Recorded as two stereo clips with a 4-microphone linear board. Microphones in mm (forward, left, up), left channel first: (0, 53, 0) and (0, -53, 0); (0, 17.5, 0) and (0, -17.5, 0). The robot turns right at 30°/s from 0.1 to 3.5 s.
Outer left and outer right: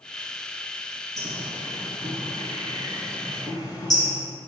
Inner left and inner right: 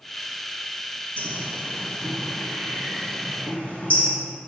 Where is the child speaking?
I don't hear a child speaking.